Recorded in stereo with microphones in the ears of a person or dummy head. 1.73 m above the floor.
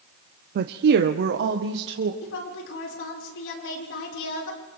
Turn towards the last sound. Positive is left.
turn(degrees=80)